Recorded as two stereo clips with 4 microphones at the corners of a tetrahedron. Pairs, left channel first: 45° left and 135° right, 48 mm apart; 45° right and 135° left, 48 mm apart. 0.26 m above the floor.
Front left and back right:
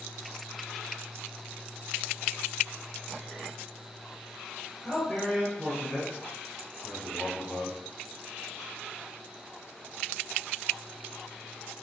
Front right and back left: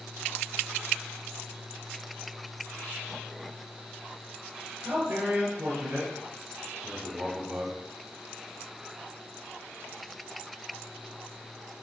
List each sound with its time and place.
4.8 s a man speaking: 135° left, 4 m; by 7.8 s 115° left, 3 m